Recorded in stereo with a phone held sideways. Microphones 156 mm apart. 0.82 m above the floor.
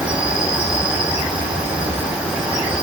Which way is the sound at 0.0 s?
5° right (ahead or behind).